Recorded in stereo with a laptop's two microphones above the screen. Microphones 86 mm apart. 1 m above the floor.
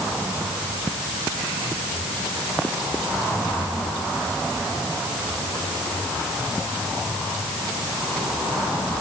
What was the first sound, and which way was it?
Only background noise.